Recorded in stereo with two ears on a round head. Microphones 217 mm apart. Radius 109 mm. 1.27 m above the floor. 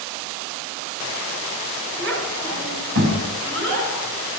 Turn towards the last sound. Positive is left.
turn(degrees=-45)  # may be behind; listen again after turning